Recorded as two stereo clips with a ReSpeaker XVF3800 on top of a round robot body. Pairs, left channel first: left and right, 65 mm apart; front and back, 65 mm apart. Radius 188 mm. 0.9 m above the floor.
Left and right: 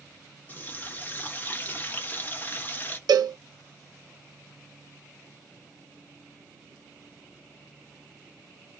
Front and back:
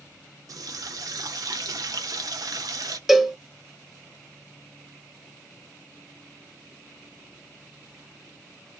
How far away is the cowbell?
About 0.6 m.